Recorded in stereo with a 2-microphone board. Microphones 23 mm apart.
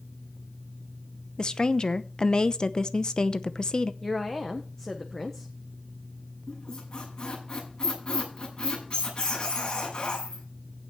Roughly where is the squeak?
Left.